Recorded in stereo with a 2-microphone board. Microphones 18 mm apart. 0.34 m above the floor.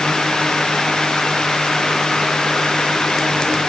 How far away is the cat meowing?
No cat meowing in this recording.